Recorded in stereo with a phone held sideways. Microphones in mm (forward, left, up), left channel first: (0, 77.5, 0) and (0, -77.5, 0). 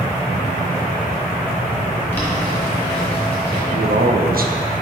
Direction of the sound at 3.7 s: 70° right (ahead or behind).